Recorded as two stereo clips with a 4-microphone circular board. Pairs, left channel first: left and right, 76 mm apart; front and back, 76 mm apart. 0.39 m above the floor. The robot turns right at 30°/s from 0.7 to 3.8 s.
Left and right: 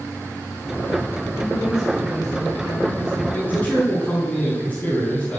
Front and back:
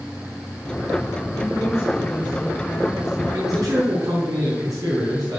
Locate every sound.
1.3 s a woman speaking: 35° left, 3.5 m; by 3.2 s 95° left, 3.5 m
3.3 s a man speaking: 150° left, 4 m; by 5.4 s 165° left, 4 m